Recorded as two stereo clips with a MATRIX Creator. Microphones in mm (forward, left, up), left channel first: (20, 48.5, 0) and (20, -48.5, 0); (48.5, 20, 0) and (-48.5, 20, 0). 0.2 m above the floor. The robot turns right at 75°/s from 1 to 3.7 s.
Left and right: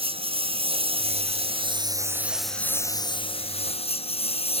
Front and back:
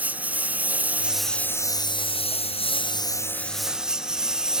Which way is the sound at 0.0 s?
105° right.